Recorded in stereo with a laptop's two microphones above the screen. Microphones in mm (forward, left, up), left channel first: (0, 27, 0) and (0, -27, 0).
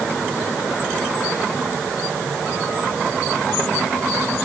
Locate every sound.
Only background noise.